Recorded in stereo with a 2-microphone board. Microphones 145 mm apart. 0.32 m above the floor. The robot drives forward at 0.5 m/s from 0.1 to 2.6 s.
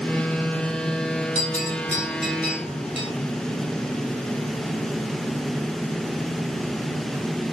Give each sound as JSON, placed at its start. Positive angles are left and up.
{"t": 1.4, "sound": "a bell", "side_deg": 50, "distance_m": 6.0}